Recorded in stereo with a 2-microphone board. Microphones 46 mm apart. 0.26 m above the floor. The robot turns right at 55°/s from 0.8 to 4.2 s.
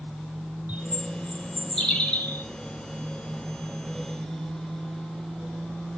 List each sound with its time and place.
0.7 s a bird: 40° right, 3 m; by 2.5 s 50° left, 3 m